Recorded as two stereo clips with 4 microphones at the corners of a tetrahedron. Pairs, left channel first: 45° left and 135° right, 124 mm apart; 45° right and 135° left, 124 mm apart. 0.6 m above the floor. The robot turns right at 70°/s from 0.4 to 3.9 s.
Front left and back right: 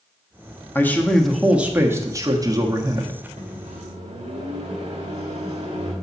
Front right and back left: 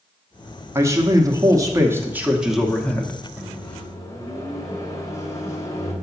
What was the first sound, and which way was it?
A man speaking, 95° left.